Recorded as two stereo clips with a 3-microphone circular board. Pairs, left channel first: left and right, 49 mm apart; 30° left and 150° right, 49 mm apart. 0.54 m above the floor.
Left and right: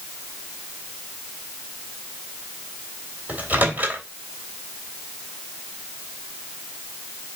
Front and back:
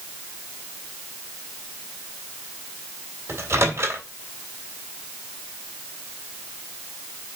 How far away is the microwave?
About 2.5 m.